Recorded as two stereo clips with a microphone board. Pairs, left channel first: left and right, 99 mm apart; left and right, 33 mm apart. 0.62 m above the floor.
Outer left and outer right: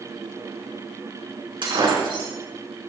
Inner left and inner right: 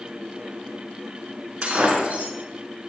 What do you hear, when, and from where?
1.6 s breaking glass: 55° right (ahead or behind), 4.5 m